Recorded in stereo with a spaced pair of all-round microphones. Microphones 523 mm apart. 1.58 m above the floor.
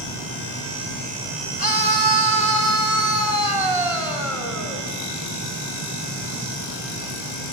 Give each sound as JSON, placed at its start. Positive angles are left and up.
{"t": 1.6, "sound": "a scream", "side_deg": -40, "distance_m": 4.0}